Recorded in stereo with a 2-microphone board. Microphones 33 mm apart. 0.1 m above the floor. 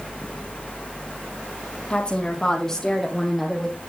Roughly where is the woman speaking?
Left.